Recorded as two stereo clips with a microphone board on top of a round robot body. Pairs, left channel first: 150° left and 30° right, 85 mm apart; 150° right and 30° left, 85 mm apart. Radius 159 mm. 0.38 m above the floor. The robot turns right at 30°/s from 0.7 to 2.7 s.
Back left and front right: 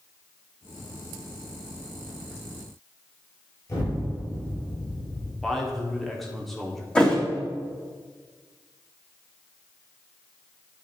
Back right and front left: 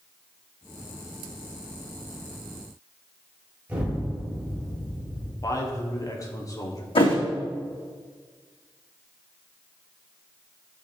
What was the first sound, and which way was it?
An explosion, 100° left.